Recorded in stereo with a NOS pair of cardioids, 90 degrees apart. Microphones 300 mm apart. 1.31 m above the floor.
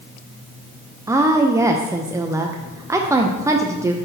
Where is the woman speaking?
10° right, 0.5 m.